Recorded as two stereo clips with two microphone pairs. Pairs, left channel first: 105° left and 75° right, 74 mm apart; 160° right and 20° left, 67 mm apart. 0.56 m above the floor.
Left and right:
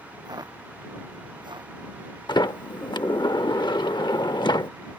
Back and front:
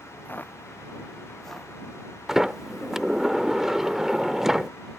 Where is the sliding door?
105° left.